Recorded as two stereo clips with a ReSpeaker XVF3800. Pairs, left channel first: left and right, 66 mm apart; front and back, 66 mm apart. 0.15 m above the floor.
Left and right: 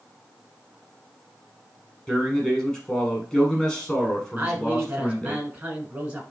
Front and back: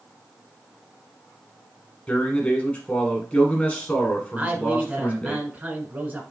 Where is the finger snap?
I don't hear a finger snap.